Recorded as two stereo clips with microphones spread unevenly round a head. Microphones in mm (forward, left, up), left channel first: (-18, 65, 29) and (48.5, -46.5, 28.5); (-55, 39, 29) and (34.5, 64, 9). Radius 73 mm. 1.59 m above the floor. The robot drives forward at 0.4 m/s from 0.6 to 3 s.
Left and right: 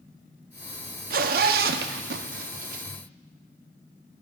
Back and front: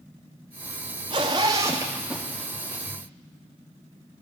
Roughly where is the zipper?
Ahead right.